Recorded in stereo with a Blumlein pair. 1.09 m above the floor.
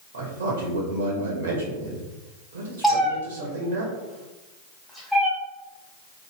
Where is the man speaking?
60° right, 0.9 m.